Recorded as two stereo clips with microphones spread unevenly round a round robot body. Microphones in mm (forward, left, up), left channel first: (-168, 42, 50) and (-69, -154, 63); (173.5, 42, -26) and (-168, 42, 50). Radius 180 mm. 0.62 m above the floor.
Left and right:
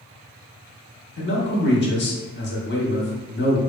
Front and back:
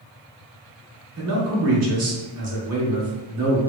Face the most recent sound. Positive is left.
turn(degrees=130)